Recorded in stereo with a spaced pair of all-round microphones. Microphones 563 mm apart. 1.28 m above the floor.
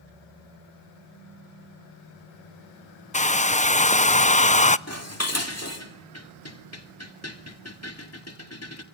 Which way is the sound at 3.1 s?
15° left (ahead or behind).